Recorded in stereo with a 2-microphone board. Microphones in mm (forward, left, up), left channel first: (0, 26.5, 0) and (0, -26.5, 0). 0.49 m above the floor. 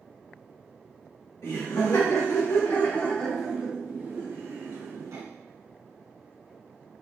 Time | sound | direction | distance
1.4 | laughter | 65° left (ahead or behind) | 1.8 m